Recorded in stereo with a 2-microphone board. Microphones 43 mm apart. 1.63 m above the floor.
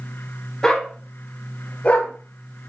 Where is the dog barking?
15° left (ahead or behind), 1.2 m; by 2.1 s 45° left (ahead or behind), 1.5 m.